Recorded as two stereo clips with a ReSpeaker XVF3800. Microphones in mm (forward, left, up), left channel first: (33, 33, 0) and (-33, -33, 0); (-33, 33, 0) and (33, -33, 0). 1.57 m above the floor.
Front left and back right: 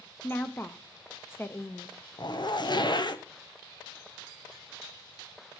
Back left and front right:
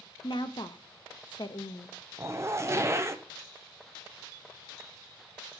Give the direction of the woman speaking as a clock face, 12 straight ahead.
8 o'clock.